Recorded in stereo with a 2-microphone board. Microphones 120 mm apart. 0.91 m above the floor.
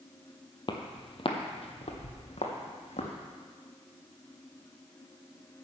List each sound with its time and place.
0.7 s footsteps: 40° left (ahead or behind), 1.2 m; by 3.1 s 65° left (ahead or behind), 2.5 m